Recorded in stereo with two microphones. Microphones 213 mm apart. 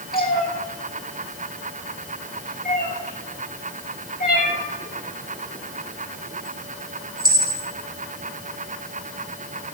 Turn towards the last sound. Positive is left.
turn(degrees=45)  # may be behind; listen again after turning